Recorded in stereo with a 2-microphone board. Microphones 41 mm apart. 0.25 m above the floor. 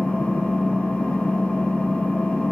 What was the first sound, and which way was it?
An engine running, 30° left (ahead or behind).